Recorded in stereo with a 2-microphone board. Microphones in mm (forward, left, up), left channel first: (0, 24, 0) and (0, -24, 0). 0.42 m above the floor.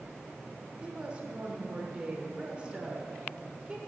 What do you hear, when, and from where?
0.8 s a woman speaking: 25° right (ahead or behind), 0.9 m